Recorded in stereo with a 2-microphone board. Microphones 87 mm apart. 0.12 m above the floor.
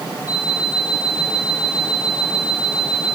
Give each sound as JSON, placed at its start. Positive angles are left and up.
{"t": 0.3, "sound": "an alarm clock", "side_deg": 40, "distance_m": 6.5}